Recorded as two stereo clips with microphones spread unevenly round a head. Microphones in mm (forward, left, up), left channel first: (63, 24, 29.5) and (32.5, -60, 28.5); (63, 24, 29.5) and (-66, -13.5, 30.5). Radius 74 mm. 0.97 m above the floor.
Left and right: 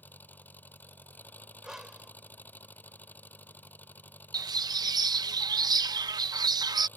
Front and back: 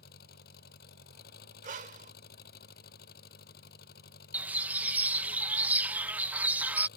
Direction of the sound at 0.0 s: Straight ahead.